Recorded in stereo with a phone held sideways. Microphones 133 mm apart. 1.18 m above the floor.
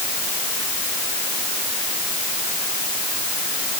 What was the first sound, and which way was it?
Only background noise.